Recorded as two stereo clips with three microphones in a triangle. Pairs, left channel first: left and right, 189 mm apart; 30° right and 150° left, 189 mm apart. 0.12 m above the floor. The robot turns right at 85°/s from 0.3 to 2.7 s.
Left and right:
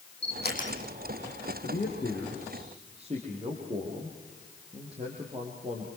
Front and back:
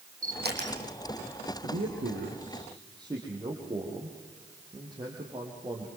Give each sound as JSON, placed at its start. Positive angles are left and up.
{"t": 0.2, "sound": "a camera shutter", "azimuth_deg": 110, "distance_m": 5.5}
{"t": 1.6, "sound": "a man speaking", "azimuth_deg": 125, "distance_m": 4.5}